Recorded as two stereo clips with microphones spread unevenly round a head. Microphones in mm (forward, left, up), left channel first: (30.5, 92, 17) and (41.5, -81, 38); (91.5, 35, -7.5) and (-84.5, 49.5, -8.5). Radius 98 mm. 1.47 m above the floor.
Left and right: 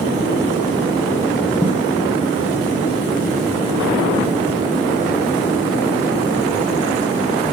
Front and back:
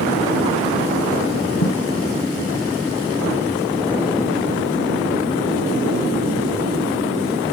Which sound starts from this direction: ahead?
A thud, at 1.6 s.